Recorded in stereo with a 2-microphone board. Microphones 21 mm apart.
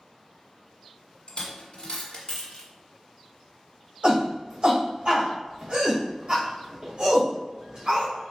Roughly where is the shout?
Right.